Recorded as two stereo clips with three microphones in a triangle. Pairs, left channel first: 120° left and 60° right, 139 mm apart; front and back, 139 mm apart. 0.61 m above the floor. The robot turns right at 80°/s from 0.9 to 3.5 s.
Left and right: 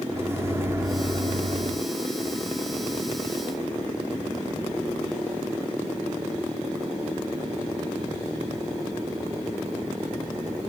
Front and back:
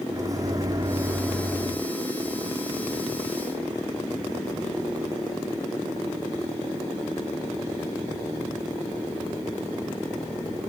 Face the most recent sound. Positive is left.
turn(degrees=85)